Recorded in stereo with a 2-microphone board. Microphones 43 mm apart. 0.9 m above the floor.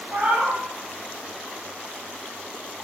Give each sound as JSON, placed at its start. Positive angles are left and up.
{"t": 0.1, "sound": "a cat meowing", "side_deg": -50, "distance_m": 0.6}